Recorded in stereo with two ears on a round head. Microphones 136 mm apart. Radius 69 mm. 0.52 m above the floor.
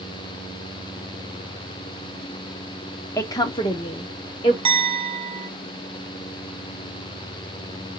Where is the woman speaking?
15° left (ahead or behind), 0.7 m; by 4.5 s 35° left (ahead or behind), 1.4 m.